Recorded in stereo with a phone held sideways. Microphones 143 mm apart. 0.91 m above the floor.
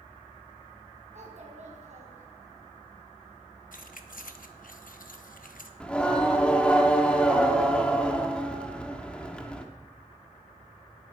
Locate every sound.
1.1 s a child speaking: 55° right (ahead or behind), 4 m
3.7 s keys jangling: 75° left (ahead or behind), 0.9 m
5.8 s singing: 10° left (ahead or behind), 1.2 m